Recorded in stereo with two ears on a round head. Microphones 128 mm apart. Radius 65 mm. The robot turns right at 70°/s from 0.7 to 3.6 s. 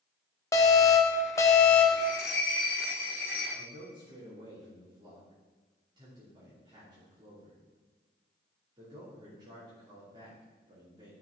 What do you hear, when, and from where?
0.5 s an alarm: 20° left (ahead or behind), 1.1 m; by 2.1 s 5° left (ahead or behind), 1.1 m
2.0 s a bell: 65° left, 3 m; by 3.5 s 170° left, 3 m
3.5 s a man speaking: 30° right (ahead or behind), 2.5 m; by 11.1 s 35° right (ahead or behind), 2.5 m